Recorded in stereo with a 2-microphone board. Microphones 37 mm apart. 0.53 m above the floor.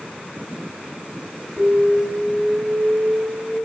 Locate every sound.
1.6 s an alarm: 30° left (ahead or behind), 3 m